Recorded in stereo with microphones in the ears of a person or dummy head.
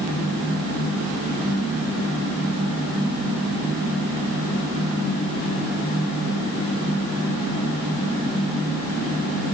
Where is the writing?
No writing in this recording.